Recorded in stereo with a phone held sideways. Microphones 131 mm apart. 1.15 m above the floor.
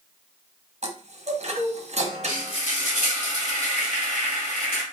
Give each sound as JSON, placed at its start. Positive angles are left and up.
{"t": 0.8, "sound": "a chime", "side_deg": -60, "distance_m": 0.8}
{"t": 2.3, "sound": "frying", "side_deg": 65, "distance_m": 2.5}